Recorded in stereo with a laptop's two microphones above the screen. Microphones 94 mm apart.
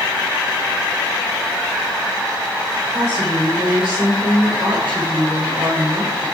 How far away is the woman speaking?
About 3.5 m.